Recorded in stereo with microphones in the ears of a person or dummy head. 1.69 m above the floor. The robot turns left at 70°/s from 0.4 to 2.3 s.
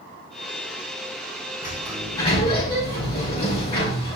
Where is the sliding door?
160° right, 5 m; by 4.2 s 155° left, 5 m.